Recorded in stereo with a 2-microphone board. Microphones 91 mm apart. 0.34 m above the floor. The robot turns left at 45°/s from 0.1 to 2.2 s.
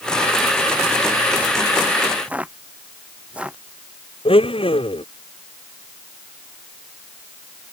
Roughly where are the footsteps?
Centre.